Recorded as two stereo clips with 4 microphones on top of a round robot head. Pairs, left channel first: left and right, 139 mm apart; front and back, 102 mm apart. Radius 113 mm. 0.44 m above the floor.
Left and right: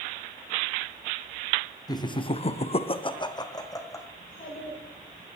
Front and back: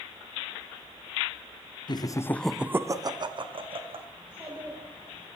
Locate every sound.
1.9 s laughter: 30° left, 1.2 m; by 4.1 s 155° left, 2.5 m
4.2 s a child speaking: 100° left, 9.5 m